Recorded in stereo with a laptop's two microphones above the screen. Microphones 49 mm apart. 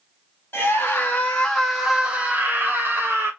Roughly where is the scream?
Left.